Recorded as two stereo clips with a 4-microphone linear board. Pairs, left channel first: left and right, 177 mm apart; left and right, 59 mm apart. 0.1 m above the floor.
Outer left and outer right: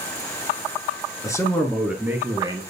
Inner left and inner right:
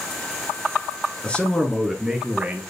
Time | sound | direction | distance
1.2 | a man speaking | 20° left (ahead or behind) | 1.4 m